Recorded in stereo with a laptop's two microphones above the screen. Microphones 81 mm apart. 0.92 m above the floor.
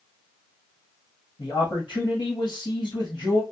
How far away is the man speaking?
About 1.4 m.